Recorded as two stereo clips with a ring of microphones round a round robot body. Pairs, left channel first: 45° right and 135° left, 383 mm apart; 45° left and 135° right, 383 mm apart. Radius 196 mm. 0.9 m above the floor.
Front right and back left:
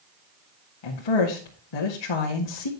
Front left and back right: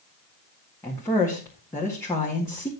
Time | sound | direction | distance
0.8 | a woman speaking | 40° right | 1.8 m